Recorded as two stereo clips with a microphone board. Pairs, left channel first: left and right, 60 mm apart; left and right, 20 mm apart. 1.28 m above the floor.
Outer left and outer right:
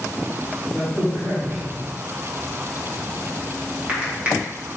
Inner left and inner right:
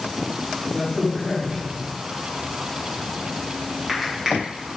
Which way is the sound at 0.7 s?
25° right (ahead or behind).